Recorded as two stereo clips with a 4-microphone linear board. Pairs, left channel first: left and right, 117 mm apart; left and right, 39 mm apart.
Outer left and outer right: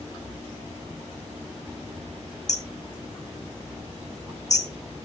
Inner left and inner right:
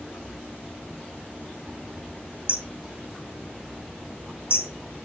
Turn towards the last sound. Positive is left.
turn(degrees=70)  # may be behind; listen again after turning